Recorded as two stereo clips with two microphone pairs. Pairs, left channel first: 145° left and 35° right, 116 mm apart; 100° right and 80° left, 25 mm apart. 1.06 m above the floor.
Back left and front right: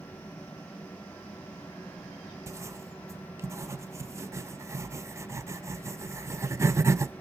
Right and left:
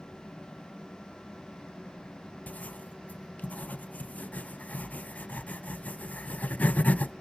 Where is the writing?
100° right, 0.5 m.